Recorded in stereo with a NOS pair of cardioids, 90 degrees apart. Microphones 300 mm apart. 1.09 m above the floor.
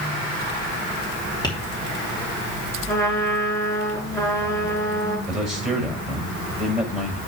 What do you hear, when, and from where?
1.4 s tapping: 15° left, 3 m
2.9 s a trumpet: 10° left, 6 m
5.3 s a man speaking: straight ahead, 5.5 m